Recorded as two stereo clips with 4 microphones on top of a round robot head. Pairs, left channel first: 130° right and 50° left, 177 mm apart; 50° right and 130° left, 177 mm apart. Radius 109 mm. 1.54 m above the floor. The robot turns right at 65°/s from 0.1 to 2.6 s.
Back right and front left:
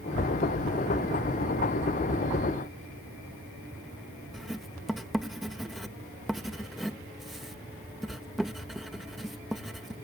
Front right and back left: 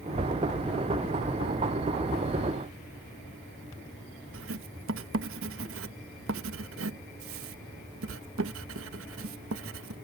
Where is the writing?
140° left.